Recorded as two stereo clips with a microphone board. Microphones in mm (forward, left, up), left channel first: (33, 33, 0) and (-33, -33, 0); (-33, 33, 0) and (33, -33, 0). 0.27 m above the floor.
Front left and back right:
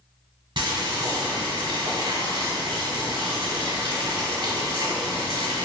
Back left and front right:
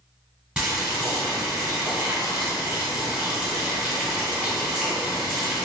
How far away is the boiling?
About 1.1 m.